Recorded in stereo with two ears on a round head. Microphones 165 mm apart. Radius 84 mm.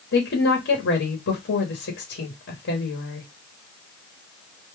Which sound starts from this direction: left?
A woman speaking, at 0.1 s.